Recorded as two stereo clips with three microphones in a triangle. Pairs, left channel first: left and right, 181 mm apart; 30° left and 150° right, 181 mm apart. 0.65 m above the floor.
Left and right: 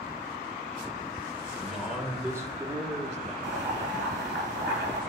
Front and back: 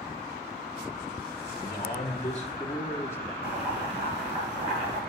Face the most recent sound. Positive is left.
turn(degrees=-95)